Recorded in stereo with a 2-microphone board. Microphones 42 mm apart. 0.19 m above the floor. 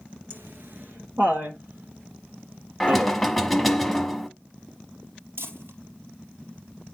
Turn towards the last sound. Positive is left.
turn(degrees=-75)  # may be behind; listen again after turning